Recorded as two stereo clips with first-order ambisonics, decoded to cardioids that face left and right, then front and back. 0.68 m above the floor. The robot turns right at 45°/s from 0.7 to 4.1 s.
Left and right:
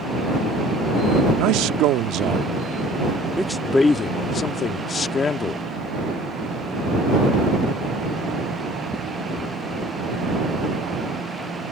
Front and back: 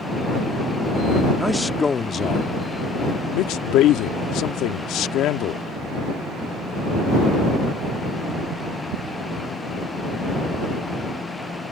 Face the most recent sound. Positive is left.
turn(degrees=30)